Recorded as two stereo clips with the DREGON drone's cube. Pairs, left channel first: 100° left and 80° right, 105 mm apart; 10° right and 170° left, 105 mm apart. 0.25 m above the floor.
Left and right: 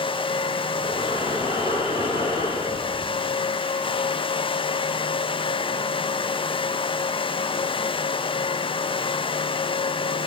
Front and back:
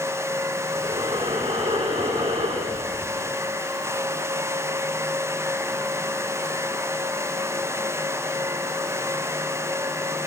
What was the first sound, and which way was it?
Breathing, 140° left.